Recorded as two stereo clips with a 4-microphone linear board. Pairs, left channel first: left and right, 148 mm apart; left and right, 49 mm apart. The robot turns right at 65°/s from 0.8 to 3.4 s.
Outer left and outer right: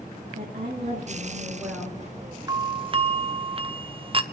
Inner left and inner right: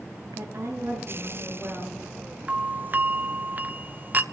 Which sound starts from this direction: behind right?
A doorbell, at 2.5 s.